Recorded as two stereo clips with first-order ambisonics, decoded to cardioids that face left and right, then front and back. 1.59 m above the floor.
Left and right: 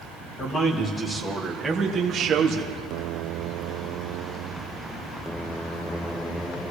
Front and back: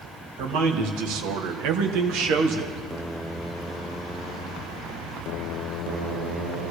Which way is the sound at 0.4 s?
155° left.